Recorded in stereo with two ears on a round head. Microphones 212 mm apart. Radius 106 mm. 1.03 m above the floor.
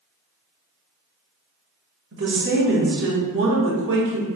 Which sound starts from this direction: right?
A woman speaking, at 2.1 s.